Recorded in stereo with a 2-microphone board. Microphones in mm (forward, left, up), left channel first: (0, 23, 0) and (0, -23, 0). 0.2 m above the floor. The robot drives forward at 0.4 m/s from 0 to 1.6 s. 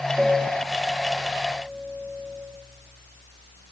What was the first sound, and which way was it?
A piano, 20° right (ahead or behind).